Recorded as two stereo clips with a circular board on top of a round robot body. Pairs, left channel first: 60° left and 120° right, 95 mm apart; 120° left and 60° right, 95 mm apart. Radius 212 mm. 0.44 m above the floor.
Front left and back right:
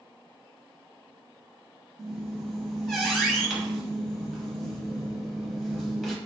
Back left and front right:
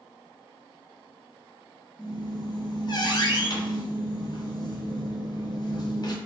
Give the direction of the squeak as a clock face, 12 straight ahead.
7 o'clock.